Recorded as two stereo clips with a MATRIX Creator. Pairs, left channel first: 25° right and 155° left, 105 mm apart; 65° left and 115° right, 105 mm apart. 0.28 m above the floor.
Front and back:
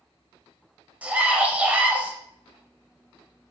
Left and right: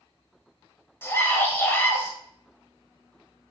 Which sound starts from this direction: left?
A scream, at 1.0 s.